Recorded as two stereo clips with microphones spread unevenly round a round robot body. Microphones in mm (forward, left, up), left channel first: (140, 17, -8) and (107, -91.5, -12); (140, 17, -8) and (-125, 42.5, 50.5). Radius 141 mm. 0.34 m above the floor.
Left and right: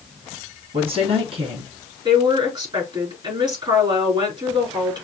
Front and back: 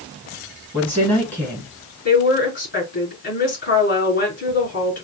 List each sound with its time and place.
0.7 s a woman speaking: 80° right, 2.5 m
2.0 s a woman speaking: 60° right, 4.5 m